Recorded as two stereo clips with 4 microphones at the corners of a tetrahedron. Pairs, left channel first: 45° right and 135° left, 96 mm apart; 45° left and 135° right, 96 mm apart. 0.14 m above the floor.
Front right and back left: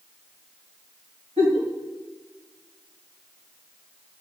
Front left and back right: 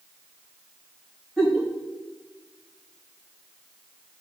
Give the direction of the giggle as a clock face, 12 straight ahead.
7 o'clock.